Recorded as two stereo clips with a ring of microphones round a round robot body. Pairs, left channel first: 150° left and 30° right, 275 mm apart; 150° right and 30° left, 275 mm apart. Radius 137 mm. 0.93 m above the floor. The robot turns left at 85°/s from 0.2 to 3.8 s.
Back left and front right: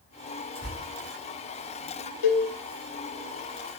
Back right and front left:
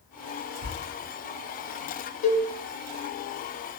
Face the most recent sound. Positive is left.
turn(degrees=10)